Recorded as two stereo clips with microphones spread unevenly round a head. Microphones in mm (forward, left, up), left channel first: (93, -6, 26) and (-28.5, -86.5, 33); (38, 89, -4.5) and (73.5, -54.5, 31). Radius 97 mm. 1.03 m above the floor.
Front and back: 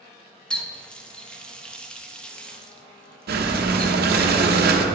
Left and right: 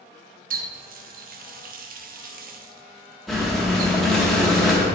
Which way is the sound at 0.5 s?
50° right.